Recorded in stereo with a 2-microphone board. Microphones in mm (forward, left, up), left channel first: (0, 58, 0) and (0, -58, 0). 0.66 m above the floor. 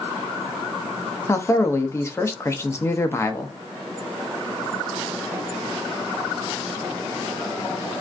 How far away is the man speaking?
About 0.6 m.